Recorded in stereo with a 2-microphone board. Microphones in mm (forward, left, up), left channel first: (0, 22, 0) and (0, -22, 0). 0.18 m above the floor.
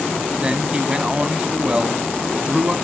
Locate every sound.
0.4 s a man speaking: 25° right (ahead or behind), 1.0 m